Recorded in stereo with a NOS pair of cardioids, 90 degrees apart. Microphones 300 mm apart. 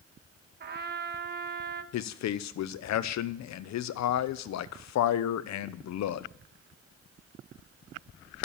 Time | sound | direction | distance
0.6 | a trumpet | 35° right | 1.1 m
1.9 | a man speaking | 70° left | 0.9 m